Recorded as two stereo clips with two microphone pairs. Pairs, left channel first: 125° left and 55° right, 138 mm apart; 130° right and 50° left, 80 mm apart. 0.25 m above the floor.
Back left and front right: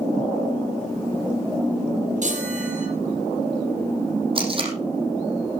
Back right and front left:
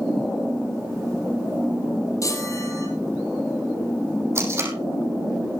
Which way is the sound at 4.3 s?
5° right.